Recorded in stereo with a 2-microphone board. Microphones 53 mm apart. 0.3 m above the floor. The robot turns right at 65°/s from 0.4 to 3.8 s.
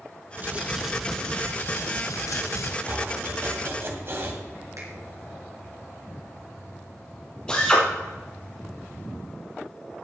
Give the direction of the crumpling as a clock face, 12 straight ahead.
1 o'clock.